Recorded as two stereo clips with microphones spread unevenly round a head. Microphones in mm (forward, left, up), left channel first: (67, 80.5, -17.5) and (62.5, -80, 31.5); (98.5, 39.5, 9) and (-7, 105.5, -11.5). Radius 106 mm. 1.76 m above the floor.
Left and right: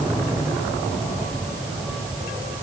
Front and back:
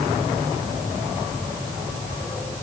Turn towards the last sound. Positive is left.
No sound to turn to.